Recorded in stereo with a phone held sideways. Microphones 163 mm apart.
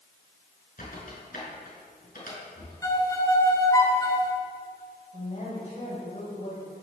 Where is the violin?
20° left (ahead or behind), 2 m.